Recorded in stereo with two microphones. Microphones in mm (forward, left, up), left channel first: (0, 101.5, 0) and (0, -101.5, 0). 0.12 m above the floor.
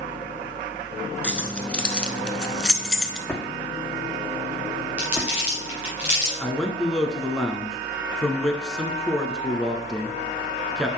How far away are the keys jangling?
About 0.9 m.